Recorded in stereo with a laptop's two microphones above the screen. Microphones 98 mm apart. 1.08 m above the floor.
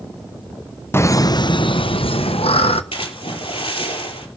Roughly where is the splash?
Left.